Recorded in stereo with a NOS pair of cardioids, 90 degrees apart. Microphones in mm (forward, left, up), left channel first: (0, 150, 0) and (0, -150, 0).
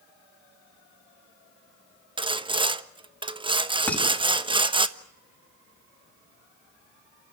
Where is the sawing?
15° right, 1.2 m.